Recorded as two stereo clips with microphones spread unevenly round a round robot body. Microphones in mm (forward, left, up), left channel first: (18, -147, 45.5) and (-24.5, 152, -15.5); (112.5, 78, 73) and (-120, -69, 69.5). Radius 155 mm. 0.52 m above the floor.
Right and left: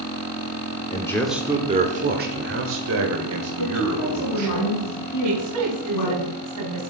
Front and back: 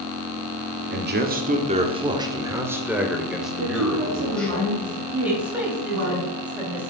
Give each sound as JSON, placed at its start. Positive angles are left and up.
{"t": 0.9, "sound": "a man speaking", "azimuth_deg": -165, "distance_m": 1.3}
{"t": 3.6, "sound": "a woman speaking", "azimuth_deg": -105, "distance_m": 5.5}
{"t": 5.2, "sound": "a woman speaking", "azimuth_deg": 125, "distance_m": 3.0}